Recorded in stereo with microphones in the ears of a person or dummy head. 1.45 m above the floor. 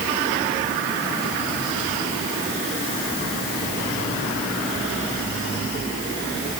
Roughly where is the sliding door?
No sliding door in this recording.